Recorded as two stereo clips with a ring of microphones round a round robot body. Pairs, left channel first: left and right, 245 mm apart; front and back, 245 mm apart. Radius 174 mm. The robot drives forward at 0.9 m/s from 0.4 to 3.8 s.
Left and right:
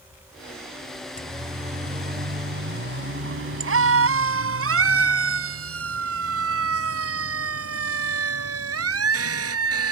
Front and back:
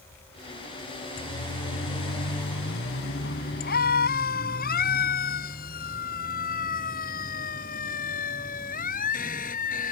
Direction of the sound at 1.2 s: 30° right.